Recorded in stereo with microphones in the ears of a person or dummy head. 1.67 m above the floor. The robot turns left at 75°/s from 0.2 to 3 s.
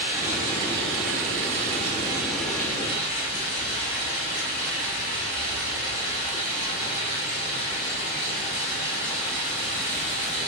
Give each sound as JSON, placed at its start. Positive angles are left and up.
{"t": 0.0, "sound": "running water", "azimuth_deg": -15, "distance_m": 1.1}